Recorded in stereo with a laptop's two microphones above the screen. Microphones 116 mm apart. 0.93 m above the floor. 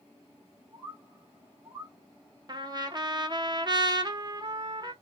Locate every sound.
0.7 s a bird: 45° right (ahead or behind), 1.0 m
2.5 s a trumpet: 40° right (ahead or behind), 0.6 m